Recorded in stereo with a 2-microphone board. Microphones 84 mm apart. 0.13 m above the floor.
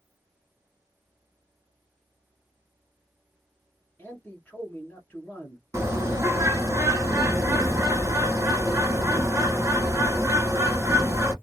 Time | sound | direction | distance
4.0 | a man speaking | 20° left (ahead or behind) | 1.3 m
5.7 | a bird | 35° right (ahead or behind) | 1.3 m